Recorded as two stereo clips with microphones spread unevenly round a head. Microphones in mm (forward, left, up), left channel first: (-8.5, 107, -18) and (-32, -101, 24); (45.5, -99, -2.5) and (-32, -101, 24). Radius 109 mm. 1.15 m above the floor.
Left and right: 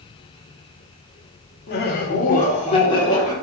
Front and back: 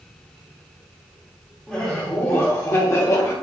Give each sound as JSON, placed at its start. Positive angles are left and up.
{"t": 1.7, "sound": "laughter", "azimuth_deg": 75, "distance_m": 1.1}